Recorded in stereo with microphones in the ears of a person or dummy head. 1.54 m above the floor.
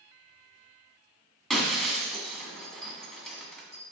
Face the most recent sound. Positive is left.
turn(degrees=0)  # may be behind; listen again after turning